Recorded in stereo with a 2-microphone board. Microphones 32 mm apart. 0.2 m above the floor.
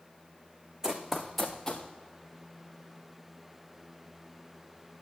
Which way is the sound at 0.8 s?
20° right (ahead or behind).